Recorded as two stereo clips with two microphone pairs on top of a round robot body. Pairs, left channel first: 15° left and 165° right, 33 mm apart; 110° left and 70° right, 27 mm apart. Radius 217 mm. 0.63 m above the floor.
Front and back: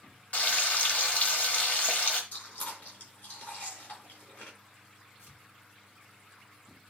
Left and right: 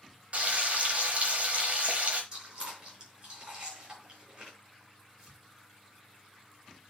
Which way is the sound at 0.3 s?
20° right.